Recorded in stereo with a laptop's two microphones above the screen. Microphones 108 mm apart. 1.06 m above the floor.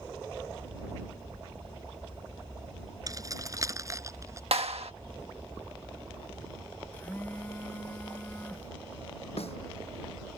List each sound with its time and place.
3.1 s keys jangling: 35° right (ahead or behind); by 4.4 s 30° right (ahead or behind)
4.5 s a clap: 75° right (ahead or behind)
6.9 s a phone buzzing: 15° left (ahead or behind)
9.4 s a snare drum: 75° left (ahead or behind)